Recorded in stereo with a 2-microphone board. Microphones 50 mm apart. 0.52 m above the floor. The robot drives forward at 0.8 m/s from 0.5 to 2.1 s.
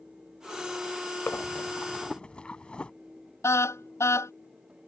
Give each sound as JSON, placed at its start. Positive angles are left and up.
{"t": 1.3, "sound": "breathing", "side_deg": 50}
{"t": 3.4, "sound": "a car horn", "side_deg": 65}